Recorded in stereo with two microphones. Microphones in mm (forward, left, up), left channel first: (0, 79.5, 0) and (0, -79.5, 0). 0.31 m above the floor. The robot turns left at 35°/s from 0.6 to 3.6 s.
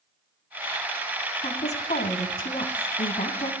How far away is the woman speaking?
About 2.5 m.